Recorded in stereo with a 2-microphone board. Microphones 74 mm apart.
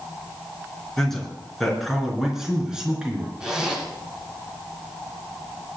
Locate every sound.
1.0 s a man speaking: 5° left (ahead or behind), 4.5 m; by 3.3 s 15° right (ahead or behind), 4.5 m
3.4 s a zipper: 10° right (ahead or behind), 4 m